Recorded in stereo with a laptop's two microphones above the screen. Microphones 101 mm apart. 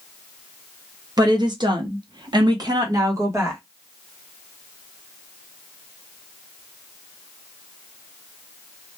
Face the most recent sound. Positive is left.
turn(degrees=-25)  # may be behind; listen again after turning